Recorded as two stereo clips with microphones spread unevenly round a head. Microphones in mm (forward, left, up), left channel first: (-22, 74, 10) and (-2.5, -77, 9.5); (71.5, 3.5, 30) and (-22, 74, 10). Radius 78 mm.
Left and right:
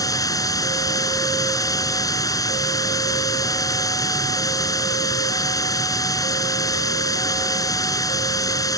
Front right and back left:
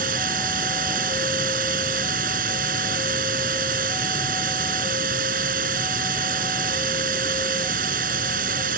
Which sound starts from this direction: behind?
Running water, at 0.0 s.